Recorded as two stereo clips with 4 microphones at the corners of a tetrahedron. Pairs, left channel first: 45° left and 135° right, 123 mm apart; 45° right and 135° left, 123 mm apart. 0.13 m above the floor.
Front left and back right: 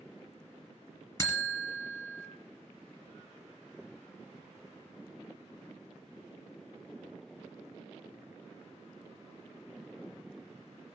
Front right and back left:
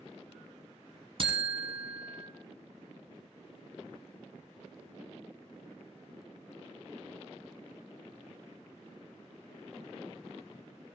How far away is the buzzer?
About 1.3 m.